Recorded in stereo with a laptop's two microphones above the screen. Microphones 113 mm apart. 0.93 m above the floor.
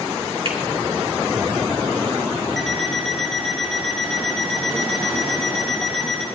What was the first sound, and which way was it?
A finger snap, 55° right (ahead or behind).